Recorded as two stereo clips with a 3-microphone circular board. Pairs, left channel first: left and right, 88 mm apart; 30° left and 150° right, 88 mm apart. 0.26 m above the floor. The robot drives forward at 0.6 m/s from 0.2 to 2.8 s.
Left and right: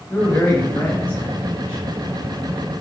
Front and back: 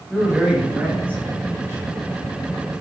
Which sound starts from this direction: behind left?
A man speaking, at 0.1 s.